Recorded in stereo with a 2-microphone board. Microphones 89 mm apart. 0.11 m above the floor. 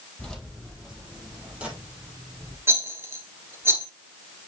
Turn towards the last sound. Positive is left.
turn(degrees=-25)  # may be behind; listen again after turning